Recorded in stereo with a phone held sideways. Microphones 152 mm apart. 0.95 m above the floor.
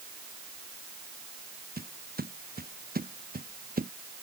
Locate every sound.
1.8 s footsteps: 80° right; by 3.9 s 75° right (ahead or behind)